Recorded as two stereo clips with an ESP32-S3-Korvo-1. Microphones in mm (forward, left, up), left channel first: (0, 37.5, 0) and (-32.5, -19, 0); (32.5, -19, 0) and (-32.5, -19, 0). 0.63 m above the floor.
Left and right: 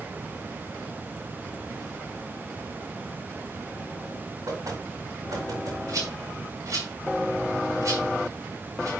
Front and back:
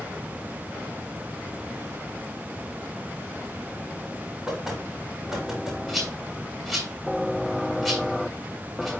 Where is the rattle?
90° right, 5.5 m.